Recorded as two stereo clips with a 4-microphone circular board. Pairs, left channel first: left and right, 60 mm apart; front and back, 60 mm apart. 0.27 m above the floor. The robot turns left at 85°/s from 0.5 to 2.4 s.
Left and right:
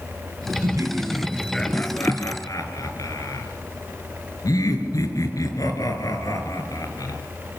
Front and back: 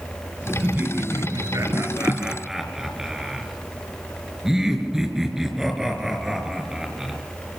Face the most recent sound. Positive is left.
turn(degrees=100)